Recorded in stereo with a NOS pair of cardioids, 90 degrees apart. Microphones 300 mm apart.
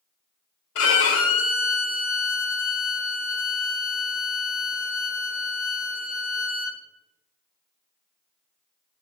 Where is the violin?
50° left, 0.7 m.